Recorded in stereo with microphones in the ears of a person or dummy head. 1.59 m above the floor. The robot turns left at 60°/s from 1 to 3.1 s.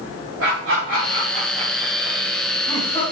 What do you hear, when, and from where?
0.4 s laughter: 85° right, 3 m; by 3.0 s 30° left (ahead or behind), 3 m